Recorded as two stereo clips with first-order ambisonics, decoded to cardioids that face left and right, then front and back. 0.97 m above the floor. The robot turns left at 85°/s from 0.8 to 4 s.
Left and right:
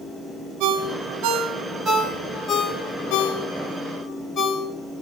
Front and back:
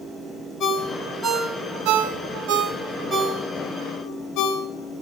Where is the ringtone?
60° right, 1.2 m; by 4.7 s 30° left, 1.2 m.